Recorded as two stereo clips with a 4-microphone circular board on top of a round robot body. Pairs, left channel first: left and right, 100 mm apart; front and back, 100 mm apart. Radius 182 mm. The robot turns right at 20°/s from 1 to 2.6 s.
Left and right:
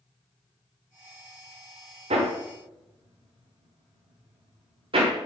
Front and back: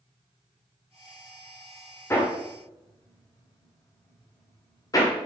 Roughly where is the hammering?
Ahead right.